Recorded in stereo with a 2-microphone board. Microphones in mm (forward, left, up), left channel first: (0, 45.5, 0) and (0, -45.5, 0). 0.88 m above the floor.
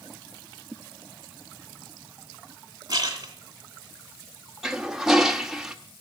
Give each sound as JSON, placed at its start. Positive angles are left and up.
{"t": 2.9, "sound": "a splash", "side_deg": -45, "distance_m": 2.5}
{"t": 4.6, "sound": "a toilet flushing", "side_deg": -5, "distance_m": 0.9}